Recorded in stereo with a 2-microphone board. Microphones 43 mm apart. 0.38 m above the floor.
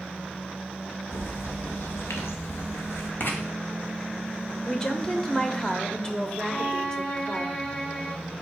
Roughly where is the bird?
Left.